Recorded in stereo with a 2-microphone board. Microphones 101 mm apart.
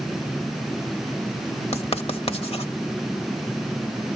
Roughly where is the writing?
Left.